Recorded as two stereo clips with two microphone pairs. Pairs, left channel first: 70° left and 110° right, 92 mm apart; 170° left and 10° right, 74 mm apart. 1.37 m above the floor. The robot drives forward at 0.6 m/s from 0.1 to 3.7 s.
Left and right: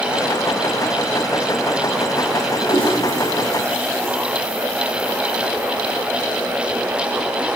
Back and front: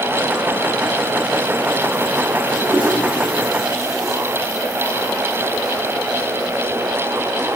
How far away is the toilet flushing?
About 3 m.